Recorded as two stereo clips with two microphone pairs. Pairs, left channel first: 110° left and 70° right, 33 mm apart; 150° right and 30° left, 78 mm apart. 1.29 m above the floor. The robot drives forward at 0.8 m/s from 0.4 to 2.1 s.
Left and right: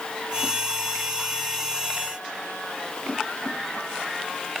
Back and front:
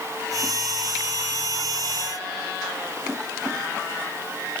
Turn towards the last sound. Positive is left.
No sound to turn to.